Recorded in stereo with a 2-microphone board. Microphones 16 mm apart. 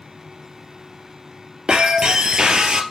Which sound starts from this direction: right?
Breaking glass, at 1.7 s.